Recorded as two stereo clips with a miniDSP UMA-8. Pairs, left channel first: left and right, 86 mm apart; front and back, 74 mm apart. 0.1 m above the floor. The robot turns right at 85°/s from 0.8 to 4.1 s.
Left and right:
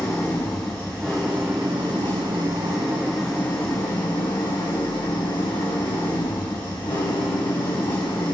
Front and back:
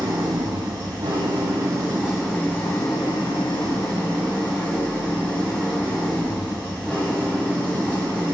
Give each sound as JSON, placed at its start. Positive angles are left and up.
{"t": 0.0, "sound": "an engine running", "azimuth_deg": 150, "distance_m": 2.5}